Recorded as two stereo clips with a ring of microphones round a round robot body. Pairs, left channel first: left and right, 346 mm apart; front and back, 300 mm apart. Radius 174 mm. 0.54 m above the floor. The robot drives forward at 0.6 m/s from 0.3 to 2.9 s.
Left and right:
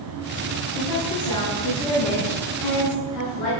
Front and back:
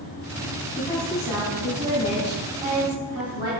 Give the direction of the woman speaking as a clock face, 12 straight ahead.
9 o'clock.